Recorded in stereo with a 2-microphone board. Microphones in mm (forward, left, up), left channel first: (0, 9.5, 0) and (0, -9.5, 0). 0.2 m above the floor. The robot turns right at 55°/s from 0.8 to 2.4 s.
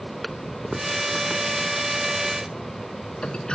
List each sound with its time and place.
0.2 s a toilet flushing: centre (ahead or behind); by 3.5 s 60° left (ahead or behind)